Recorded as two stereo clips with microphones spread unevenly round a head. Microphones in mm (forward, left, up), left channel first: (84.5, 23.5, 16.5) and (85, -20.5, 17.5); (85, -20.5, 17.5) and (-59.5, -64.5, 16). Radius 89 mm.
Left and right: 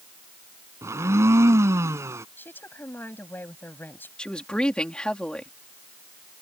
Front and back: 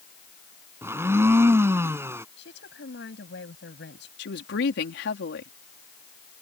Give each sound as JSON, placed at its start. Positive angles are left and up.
{"t": 0.8, "sound": "a blender", "azimuth_deg": -90}
{"t": 2.4, "sound": "a woman speaking", "azimuth_deg": 50}
{"t": 4.2, "sound": "a woman speaking", "azimuth_deg": 20}